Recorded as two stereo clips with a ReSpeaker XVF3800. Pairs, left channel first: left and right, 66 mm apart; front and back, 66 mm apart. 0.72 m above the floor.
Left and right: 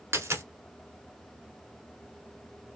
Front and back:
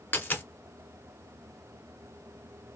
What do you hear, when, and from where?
0.1 s a dropped coin: 55° right, 1.0 m